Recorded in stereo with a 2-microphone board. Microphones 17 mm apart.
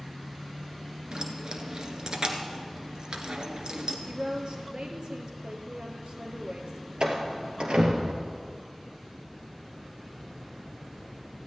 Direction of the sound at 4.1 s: 60° right (ahead or behind).